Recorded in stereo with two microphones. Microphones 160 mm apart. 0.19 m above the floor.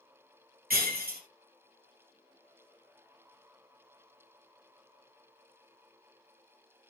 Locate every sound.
0.7 s breaking glass: 70° right (ahead or behind), 3 m